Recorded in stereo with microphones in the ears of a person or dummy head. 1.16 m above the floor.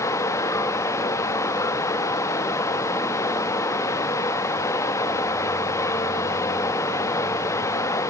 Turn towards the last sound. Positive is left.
turn(degrees=15)  # may be behind; listen again after turning